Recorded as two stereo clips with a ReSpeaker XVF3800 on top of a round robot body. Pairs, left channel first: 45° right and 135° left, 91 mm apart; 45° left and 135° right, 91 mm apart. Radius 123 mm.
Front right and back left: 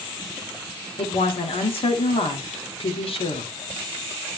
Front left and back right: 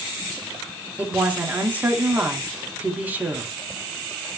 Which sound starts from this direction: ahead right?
A woman speaking, at 1.0 s.